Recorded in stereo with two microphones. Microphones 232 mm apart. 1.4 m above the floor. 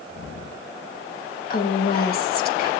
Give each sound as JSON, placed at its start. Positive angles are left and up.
{"t": 1.5, "sound": "a woman speaking", "side_deg": 45, "distance_m": 2.0}